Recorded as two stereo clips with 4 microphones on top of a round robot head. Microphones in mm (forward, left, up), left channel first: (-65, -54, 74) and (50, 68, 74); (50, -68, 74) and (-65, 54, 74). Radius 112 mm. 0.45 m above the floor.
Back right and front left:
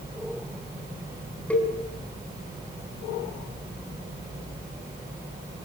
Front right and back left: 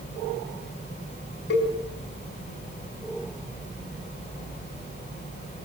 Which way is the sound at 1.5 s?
50° right.